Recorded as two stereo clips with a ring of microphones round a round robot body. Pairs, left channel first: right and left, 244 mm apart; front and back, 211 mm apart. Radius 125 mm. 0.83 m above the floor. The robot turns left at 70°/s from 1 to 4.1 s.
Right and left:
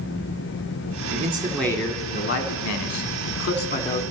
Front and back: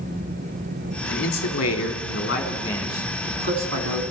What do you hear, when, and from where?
1.1 s a man speaking: 35° left, 1.7 m; by 4.0 s 170° right, 1.7 m